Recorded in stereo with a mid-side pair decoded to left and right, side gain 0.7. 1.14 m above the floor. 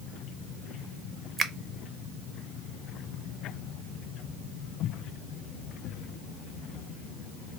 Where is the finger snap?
30° right, 0.6 m.